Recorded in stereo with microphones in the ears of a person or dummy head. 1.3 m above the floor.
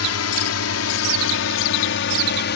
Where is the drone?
70° left (ahead or behind); by 2.6 s 50° left (ahead or behind).